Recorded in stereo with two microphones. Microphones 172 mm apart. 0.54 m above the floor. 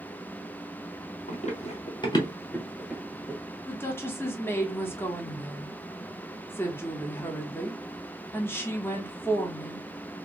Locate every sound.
1.3 s running footsteps: 50° left (ahead or behind), 1.1 m; by 3.4 s 20° right (ahead or behind), 0.9 m
3.7 s a woman speaking: 15° left (ahead or behind), 0.9 m